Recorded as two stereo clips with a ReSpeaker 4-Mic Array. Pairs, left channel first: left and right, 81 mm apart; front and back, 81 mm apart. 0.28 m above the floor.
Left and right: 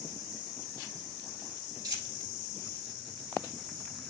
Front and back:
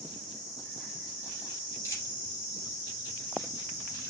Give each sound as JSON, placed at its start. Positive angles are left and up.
{"t": 1.8, "sound": "a dropped coin", "azimuth_deg": -50, "distance_m": 2.5}